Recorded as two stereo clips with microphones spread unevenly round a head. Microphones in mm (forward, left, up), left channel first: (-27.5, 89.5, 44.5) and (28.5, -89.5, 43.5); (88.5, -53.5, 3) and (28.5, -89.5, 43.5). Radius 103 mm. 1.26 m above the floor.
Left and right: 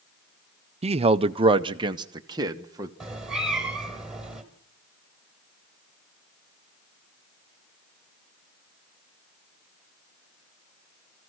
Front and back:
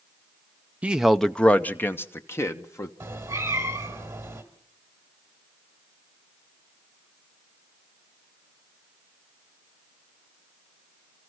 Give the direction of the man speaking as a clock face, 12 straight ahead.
1 o'clock.